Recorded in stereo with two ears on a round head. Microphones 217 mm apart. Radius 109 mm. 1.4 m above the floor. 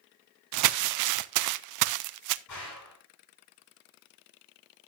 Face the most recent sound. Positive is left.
turn(degrees=85)